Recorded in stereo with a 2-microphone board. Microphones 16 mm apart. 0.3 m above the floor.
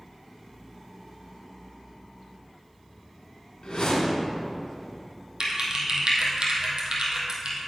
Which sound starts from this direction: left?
A whoosh, at 3.6 s.